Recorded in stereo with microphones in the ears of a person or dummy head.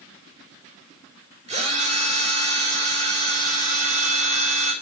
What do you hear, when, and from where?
1.5 s a drill: 30° right (ahead or behind), 5.5 m